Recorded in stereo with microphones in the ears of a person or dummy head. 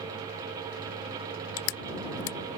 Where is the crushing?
70° left (ahead or behind).